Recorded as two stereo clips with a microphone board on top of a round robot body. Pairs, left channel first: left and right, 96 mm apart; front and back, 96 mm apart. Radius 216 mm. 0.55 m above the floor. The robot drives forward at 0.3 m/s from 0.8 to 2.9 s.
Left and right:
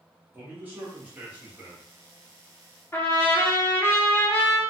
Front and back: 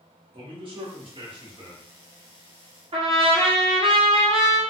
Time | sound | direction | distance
0.3 | a man speaking | 160° right | 1.6 m
2.9 | a trumpet | 155° left | 1.0 m